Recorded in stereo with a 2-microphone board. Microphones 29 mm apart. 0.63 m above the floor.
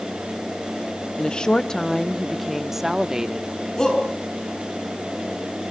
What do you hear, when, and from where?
1.2 s a woman speaking: 40° left (ahead or behind), 0.8 m; by 3.5 s 30° right (ahead or behind), 1.2 m
3.8 s a shout: 25° left (ahead or behind), 6.5 m